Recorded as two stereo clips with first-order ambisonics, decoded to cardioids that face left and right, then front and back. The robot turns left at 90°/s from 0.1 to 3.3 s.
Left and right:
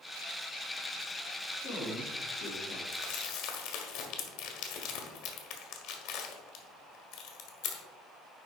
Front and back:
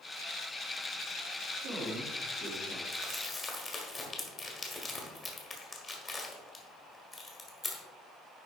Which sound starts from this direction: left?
Crumpling, at 2.9 s.